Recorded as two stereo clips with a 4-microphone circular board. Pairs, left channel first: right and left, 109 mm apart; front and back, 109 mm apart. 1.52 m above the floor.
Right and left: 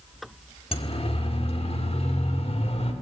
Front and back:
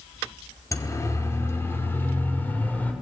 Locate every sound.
0.7 s a siren: 60° right, 4.5 m; by 2.9 s 75° right, 6 m